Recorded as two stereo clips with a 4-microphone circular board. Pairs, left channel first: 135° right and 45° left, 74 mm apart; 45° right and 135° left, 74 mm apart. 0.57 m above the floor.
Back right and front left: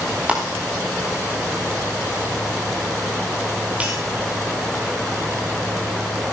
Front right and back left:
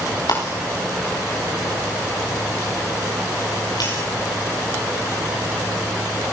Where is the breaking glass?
25° right, 9 m.